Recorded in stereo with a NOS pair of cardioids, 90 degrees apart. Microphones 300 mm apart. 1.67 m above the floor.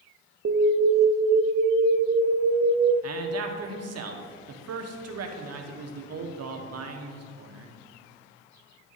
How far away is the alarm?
About 0.8 m.